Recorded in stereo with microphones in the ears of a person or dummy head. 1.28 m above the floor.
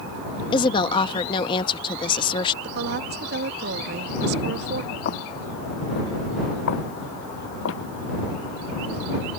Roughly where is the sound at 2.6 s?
Right.